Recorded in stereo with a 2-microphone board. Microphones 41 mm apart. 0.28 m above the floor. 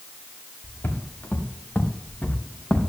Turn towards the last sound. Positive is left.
turn(degrees=25)  # may be behind; listen again after turning